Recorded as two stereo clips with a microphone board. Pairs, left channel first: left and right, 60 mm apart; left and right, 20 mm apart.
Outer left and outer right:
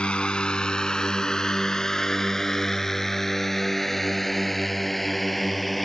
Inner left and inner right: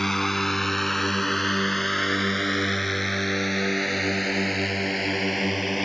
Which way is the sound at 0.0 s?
20° left (ahead or behind).